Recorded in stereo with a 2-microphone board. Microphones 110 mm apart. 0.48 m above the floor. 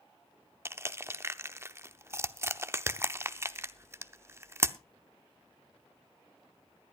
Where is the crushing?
25° right (ahead or behind), 0.6 m.